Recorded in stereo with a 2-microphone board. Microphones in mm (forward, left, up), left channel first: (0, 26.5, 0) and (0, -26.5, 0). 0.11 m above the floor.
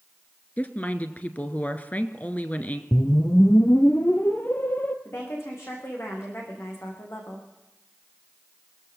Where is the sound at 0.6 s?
30° left (ahead or behind), 1.4 m.